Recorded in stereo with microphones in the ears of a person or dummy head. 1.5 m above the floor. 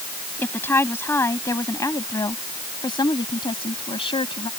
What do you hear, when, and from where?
0.4 s a woman speaking: 15° left (ahead or behind); by 4.5 s 30° left (ahead or behind)